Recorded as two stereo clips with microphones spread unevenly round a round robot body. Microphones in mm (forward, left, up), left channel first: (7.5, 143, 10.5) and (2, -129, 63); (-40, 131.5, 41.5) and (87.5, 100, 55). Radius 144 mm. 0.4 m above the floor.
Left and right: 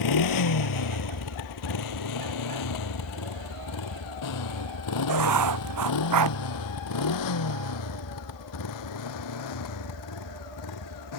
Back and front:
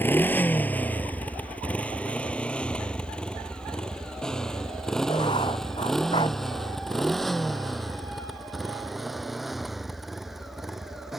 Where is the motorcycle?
90° left; by 11.2 s 75° left.